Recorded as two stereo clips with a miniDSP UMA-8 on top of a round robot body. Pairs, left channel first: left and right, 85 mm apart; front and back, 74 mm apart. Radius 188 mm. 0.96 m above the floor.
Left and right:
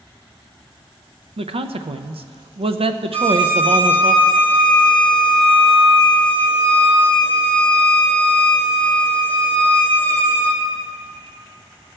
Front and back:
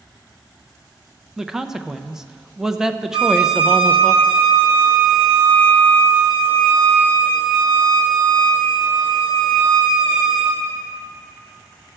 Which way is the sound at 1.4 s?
95° right.